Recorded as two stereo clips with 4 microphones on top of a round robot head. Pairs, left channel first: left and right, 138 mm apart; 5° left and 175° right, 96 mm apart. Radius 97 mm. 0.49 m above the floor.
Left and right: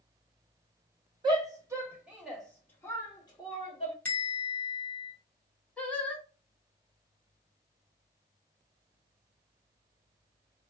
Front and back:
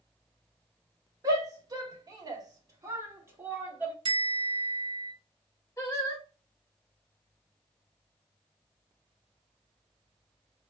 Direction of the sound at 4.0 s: 165° left.